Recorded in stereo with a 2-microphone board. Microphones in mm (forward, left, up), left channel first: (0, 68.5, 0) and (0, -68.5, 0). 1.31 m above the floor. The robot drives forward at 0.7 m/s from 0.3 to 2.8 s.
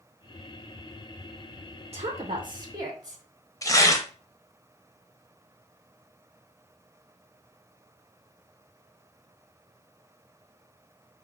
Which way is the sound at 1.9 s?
50° right (ahead or behind).